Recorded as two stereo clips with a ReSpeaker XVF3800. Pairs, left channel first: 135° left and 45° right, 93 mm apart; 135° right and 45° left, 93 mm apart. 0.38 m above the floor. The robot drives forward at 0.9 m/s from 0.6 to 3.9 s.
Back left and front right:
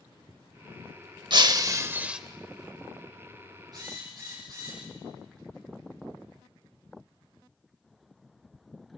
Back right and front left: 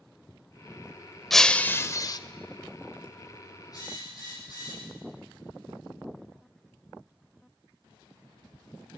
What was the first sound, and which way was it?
Breaking glass, 50° right.